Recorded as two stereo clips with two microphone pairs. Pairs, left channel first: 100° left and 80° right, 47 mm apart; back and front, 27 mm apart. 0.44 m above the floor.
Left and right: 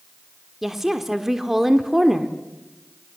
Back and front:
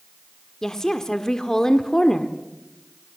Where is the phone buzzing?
No phone buzzing in this recording.